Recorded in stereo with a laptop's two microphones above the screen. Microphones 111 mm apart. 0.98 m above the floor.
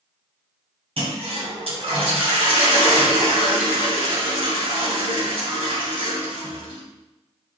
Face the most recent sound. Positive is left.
turn(degrees=-65)  # may be behind; listen again after turning